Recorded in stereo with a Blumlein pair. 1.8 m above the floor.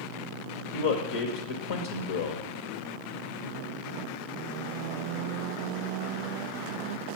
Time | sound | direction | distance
0.7 | a man speaking | 55° left | 1.0 m